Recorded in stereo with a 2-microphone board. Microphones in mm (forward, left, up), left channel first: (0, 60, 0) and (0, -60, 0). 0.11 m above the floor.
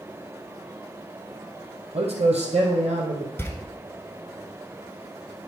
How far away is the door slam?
About 1.1 m.